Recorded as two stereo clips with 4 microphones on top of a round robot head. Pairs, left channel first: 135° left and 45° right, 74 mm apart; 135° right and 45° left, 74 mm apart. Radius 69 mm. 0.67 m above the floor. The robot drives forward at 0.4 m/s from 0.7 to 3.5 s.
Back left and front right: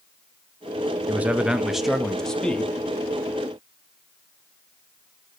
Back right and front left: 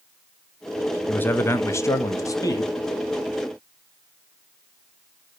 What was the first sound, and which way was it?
A man speaking, 90° right.